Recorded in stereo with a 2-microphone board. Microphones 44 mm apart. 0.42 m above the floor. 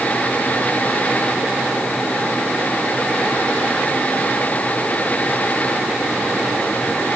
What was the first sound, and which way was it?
Only background noise.